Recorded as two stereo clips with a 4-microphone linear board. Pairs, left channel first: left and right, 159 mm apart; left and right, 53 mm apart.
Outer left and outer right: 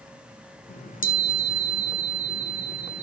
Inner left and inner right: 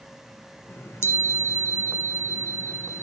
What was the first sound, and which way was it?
A chime, 60° left (ahead or behind).